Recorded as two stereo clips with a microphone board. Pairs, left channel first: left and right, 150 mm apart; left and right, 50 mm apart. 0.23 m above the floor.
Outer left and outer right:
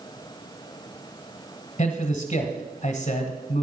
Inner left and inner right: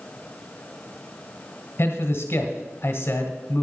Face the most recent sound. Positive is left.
turn(degrees=45)  # may be behind; listen again after turning